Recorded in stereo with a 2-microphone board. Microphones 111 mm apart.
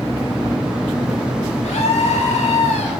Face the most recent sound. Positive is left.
turn(degrees=80)